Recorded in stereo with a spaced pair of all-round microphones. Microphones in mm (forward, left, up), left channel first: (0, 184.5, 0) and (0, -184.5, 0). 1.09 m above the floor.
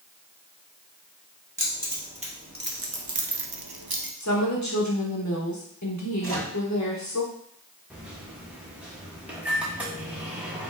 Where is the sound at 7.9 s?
5° right (ahead or behind), 1.1 m.